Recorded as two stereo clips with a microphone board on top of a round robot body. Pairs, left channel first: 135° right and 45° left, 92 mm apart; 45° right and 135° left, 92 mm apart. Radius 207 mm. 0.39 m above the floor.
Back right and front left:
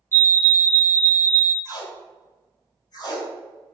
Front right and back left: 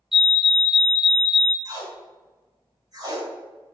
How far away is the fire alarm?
About 1.9 m.